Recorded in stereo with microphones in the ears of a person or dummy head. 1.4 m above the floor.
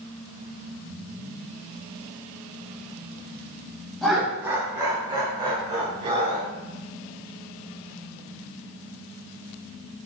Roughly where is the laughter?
Centre.